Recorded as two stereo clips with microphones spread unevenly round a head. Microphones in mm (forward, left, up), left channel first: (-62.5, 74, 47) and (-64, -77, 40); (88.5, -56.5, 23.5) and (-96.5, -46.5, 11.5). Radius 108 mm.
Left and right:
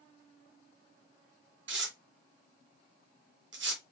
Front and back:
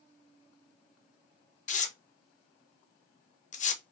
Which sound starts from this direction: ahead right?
Tearing paper, at 1.7 s.